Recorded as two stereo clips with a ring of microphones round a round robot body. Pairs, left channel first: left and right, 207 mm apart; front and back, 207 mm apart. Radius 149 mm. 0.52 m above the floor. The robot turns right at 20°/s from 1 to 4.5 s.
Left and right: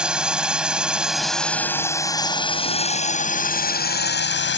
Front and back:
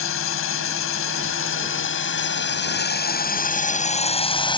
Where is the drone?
5° right; by 4.6 s 65° left.